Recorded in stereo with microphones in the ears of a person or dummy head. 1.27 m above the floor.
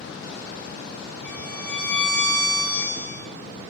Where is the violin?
5° left (ahead or behind), 1.6 m.